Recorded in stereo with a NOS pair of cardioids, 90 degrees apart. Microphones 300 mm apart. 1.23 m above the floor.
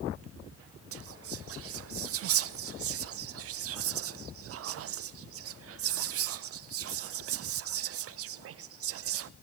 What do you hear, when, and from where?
0.9 s whispering: 50° right, 0.5 m